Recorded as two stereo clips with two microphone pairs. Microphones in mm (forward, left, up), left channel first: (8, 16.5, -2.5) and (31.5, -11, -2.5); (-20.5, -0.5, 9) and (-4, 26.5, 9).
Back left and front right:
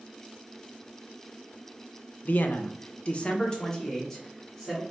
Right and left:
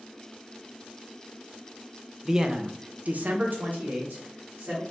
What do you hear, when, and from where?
2.2 s a man speaking: 135° left, 0.6 m; by 4.8 s 45° left, 1.4 m